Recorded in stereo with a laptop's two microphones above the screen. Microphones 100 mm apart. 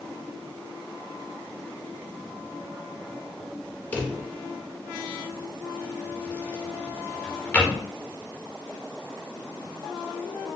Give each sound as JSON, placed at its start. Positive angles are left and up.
{"t": 3.9, "sound": "a drawer", "side_deg": 20, "distance_m": 0.5}